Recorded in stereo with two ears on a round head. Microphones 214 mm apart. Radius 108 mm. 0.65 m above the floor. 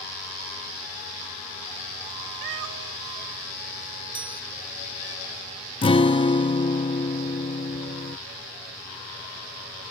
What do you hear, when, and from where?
2.4 s a cat meowing: 50° right (ahead or behind); by 5.2 s 55° right (ahead or behind)
4.2 s a chime: 20° right (ahead or behind)
5.8 s a guitar: 20° left (ahead or behind)